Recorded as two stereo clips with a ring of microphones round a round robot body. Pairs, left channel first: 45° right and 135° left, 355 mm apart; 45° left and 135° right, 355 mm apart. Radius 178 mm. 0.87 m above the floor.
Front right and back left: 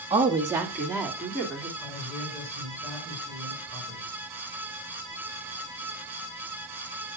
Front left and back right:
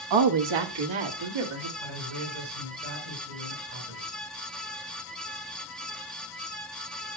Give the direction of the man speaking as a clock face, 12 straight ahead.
4 o'clock.